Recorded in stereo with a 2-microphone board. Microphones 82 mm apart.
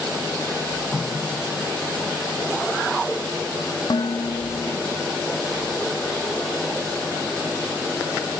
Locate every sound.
0.9 s a running tap: 5° left (ahead or behind)
3.9 s dishes clattering: 55° left (ahead or behind)